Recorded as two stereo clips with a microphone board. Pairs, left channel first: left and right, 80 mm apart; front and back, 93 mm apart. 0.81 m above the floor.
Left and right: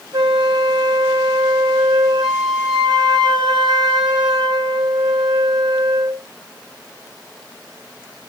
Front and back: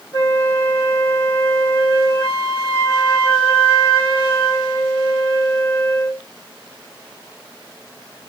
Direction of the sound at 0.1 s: 60° right.